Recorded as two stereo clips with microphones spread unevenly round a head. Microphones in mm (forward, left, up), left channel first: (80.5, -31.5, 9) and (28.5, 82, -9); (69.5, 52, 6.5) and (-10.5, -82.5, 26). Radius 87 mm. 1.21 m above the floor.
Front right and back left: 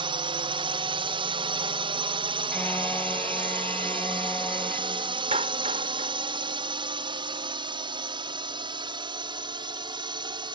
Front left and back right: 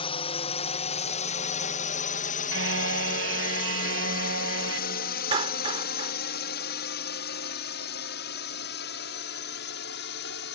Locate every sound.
0.0 s a drone: 95° left; by 10.6 s 65° left
2.5 s a car horn: 145° right
5.3 s a clap: 175° left